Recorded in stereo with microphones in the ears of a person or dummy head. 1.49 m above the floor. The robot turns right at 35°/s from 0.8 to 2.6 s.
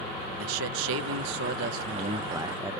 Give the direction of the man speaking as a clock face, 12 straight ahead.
2 o'clock.